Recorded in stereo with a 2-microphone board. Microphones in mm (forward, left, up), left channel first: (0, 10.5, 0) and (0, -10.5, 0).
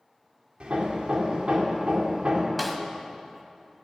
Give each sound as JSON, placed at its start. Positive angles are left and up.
{"t": 0.6, "sound": "hammering", "side_deg": -70, "distance_m": 2.0}
{"t": 2.6, "sound": "a snare drum", "side_deg": -5, "distance_m": 1.2}